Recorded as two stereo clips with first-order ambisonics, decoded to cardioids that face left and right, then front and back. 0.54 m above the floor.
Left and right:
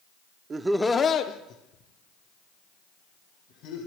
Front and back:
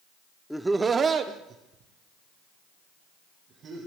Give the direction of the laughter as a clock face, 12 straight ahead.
3 o'clock.